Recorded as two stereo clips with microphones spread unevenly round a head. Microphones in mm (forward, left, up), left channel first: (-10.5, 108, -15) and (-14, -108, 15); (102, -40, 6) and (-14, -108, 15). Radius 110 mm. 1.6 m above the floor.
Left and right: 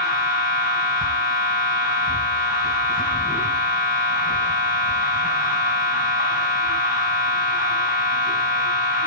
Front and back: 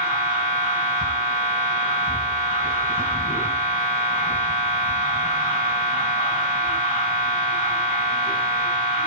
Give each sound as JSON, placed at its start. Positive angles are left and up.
{"t": 0.0, "sound": "a machine running", "azimuth_deg": 140, "distance_m": 5.0}